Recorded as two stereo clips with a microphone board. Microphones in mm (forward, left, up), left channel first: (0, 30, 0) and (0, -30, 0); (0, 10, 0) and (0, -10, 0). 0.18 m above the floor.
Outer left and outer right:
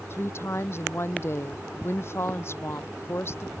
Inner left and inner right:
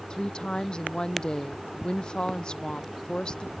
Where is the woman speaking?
45° left (ahead or behind).